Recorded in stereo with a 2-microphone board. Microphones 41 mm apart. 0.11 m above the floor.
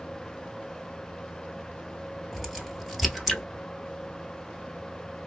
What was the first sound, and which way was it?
A crack, 5° right (ahead or behind).